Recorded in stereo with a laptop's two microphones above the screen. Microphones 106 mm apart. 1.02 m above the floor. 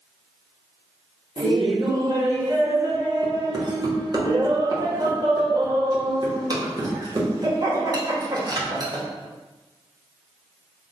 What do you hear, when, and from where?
1.4 s laughter: 40° right (ahead or behind), 1.1 m